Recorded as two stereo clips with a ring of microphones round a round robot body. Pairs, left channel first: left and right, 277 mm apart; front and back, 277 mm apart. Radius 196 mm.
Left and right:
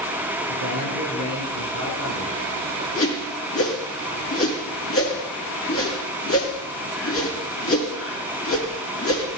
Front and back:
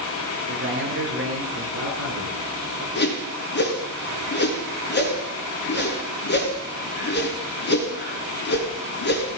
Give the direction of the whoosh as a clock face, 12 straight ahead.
10 o'clock.